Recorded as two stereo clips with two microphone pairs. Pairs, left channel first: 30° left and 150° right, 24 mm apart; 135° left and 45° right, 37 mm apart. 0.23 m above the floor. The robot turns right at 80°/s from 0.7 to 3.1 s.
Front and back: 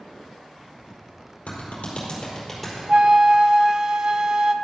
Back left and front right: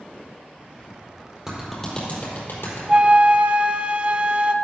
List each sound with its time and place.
1.5 s a clap: 30° left, 4.5 m; by 2.8 s 135° left, 4.5 m
2.9 s a flute: 110° right, 0.5 m; by 4.5 s 95° right, 0.5 m